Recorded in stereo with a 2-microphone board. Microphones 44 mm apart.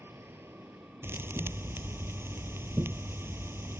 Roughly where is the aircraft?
Right.